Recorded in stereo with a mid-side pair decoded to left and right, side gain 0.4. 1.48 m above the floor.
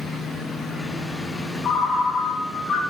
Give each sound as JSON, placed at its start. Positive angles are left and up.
{"t": 1.6, "sound": "a ringtone", "azimuth_deg": 65, "distance_m": 1.1}